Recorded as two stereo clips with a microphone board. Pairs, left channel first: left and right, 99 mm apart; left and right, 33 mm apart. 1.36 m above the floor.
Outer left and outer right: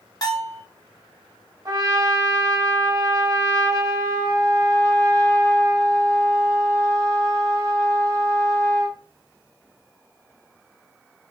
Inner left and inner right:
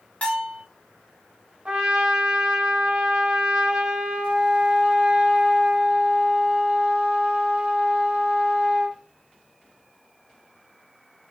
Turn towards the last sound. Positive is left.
turn(degrees=-35)  # may be behind; listen again after turning